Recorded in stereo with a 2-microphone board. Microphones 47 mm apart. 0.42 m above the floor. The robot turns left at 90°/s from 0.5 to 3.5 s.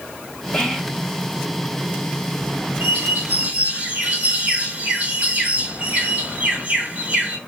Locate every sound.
0.5 s whispering: 50° left, 1.0 m; by 1.1 s straight ahead, 1.0 m
2.8 s a bird: 70° right, 1.9 m; by 7.4 s 130° right, 1.9 m